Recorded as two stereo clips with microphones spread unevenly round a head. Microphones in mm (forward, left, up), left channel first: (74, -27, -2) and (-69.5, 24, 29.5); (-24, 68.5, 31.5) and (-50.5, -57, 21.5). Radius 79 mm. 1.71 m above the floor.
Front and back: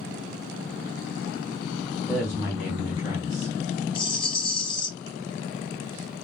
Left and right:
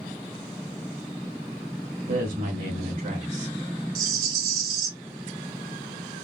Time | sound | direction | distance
2.1 | a woman speaking | 110° right | 1.2 m
4.0 | a rattle | 80° right | 0.9 m